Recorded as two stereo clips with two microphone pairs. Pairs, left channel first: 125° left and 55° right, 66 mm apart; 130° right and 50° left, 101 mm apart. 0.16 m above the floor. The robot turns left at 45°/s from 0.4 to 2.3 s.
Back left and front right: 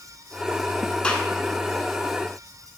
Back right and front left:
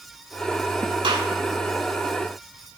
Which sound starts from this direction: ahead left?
A gunshot, at 1.0 s.